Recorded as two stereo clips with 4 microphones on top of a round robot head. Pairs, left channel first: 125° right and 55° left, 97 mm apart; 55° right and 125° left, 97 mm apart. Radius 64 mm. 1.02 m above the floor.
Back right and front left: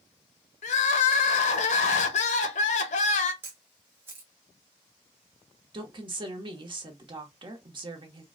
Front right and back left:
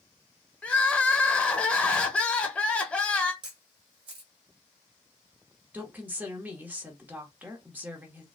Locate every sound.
0.6 s crying: 130° right, 0.6 m
3.4 s a camera shutter: 110° left, 0.8 m
5.7 s a woman speaking: 60° left, 1.1 m